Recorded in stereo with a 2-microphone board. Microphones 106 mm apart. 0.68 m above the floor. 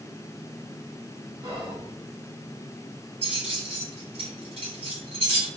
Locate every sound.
1.4 s whispering: 50° right (ahead or behind), 1.9 m
3.2 s keys jangling: 70° right (ahead or behind), 1.7 m